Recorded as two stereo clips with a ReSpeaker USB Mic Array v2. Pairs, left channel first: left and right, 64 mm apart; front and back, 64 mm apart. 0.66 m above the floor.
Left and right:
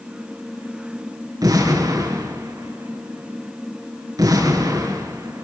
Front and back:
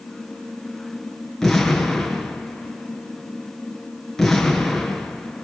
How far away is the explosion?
About 5.5 m.